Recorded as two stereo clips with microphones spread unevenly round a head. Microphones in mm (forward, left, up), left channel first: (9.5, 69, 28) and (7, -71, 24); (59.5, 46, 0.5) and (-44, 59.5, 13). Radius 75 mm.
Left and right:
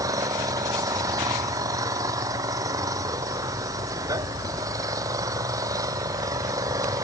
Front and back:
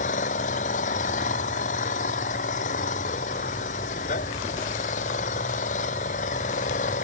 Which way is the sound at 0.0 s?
20° right.